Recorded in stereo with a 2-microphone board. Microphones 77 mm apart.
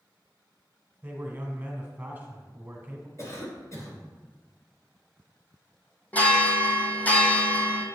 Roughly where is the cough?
Left.